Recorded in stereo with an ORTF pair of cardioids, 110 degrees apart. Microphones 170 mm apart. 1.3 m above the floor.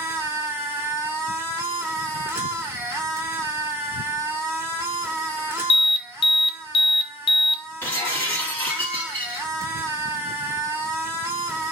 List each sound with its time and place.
0.0 s a machine running: 15° right, 1.4 m
5.7 s an alarm: 30° left, 0.5 m
7.8 s breaking glass: 10° left, 1.5 m